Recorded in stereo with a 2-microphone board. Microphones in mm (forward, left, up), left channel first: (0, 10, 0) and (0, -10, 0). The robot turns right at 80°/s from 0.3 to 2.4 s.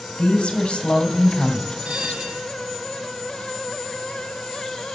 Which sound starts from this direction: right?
A bell, at 1.9 s.